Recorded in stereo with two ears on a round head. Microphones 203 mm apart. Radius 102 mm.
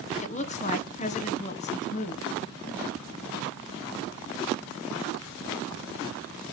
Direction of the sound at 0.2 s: 30° left (ahead or behind).